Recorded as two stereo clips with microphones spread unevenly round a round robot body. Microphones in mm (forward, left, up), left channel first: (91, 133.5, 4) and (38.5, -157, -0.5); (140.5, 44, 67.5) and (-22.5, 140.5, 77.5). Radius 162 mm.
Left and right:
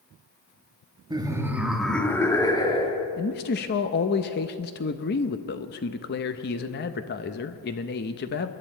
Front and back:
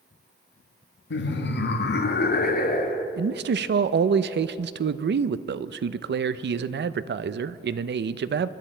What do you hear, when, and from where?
1.1 s laughter: 25° right, 1.5 m; by 3.1 s 10° left, 2.0 m
3.2 s a man speaking: 135° left, 0.5 m